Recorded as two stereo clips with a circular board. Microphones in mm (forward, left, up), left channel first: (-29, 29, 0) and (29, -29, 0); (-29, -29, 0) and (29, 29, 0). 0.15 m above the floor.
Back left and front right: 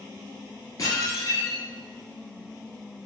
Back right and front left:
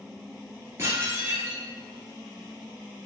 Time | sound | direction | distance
0.8 | dishes clattering | 95° left | 1.6 m